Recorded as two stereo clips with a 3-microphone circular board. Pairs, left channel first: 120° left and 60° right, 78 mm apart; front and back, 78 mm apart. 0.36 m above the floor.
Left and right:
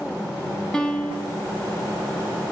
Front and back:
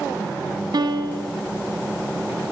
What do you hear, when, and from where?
0.7 s a piano: 160° right, 2.5 m